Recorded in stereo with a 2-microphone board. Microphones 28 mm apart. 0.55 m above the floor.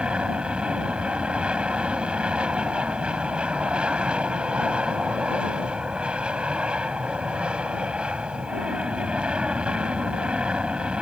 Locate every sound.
0.0 s an aircraft: 40° right (ahead or behind)